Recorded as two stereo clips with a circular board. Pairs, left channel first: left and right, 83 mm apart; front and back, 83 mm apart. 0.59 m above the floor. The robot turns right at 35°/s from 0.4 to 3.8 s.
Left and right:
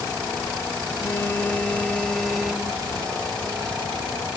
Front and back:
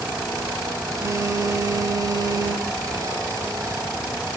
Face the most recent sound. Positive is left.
turn(degrees=-130)